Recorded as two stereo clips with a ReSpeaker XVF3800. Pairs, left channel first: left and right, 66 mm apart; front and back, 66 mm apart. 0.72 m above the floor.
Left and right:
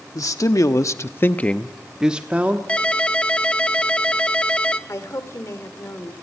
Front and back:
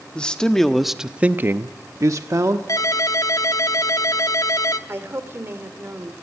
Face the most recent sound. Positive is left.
turn(degrees=130)